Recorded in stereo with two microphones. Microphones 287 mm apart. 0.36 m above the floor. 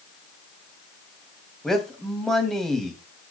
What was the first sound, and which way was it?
A man speaking, centre (ahead or behind).